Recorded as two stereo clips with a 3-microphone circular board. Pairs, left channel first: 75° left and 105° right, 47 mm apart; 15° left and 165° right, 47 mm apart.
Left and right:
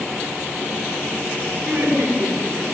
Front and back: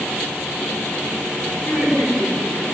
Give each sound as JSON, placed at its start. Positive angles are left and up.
{"t": 1.6, "sound": "laughter", "azimuth_deg": -25, "distance_m": 6.5}